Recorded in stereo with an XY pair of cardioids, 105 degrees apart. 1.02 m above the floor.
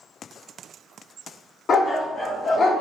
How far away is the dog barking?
About 1.2 m.